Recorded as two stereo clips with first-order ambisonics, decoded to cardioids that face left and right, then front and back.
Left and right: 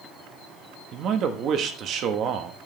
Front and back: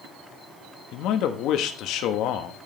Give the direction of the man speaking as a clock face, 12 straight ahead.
1 o'clock.